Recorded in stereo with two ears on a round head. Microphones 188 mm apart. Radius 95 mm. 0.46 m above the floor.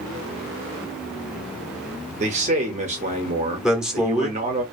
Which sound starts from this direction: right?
A man speaking, at 2.2 s.